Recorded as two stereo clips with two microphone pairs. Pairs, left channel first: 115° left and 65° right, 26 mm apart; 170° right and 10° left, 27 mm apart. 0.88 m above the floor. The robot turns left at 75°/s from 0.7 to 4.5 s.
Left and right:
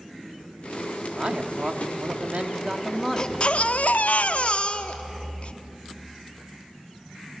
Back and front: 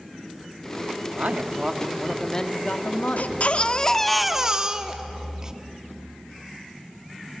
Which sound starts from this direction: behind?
A baby crying, at 3.2 s.